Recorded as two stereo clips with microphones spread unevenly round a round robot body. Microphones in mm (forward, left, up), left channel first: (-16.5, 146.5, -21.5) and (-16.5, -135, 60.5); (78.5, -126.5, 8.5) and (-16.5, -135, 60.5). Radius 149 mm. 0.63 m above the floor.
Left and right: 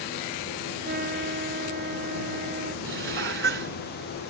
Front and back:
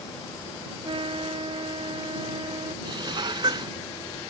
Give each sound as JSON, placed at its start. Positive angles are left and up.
{"t": 0.8, "sound": "a trumpet", "azimuth_deg": -145}
{"t": 2.9, "sound": "dishes clattering", "azimuth_deg": -140}